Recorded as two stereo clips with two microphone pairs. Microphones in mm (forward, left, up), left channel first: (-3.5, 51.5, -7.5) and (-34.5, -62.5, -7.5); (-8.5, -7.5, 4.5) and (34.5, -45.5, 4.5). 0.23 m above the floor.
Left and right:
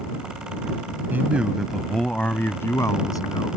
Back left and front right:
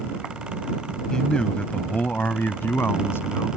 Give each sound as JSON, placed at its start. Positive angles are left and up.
{"t": 1.1, "sound": "a man speaking", "azimuth_deg": -155}